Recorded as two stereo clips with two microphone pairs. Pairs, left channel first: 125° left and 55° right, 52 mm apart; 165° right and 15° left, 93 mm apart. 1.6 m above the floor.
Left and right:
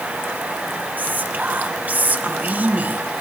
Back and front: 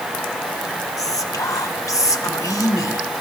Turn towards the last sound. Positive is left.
turn(degrees=-115)